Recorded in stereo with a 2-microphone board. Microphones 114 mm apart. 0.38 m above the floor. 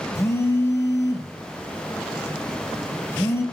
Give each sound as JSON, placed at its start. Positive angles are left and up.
{"t": 0.1, "sound": "a phone buzzing", "side_deg": 25, "distance_m": 0.5}